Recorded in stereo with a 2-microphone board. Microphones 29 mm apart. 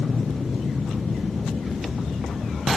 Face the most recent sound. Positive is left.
turn(degrees=-60)  # may be behind; listen again after turning